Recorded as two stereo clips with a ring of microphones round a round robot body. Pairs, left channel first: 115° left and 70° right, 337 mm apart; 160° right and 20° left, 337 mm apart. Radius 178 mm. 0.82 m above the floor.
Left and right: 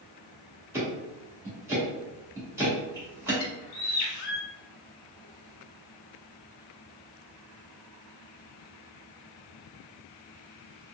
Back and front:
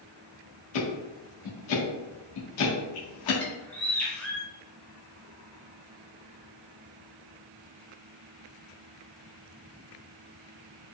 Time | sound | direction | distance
0.7 | ticking | 150° right | 1.3 m
3.4 | a bird | 115° left | 0.8 m